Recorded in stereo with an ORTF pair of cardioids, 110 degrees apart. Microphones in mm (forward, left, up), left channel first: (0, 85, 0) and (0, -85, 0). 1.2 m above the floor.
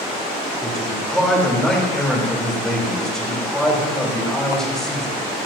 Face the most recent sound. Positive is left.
turn(degrees=5)